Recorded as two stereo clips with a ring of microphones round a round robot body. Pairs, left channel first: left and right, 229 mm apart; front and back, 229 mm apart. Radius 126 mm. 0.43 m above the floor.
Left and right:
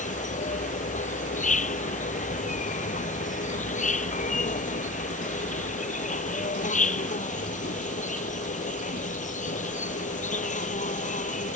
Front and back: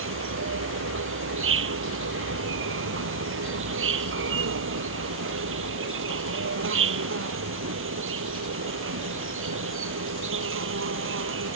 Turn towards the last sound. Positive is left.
turn(degrees=150)